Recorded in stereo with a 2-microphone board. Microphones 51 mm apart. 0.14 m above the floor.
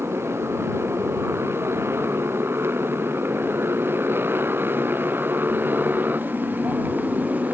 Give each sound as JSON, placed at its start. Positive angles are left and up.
{"t": 0.0, "sound": "a motorcycle", "side_deg": -55}